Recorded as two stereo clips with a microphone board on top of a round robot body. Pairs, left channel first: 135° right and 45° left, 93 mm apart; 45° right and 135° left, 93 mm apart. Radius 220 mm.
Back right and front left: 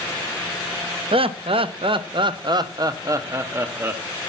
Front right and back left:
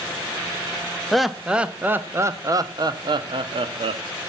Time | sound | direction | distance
1.1 | laughter | 40° left | 1.4 m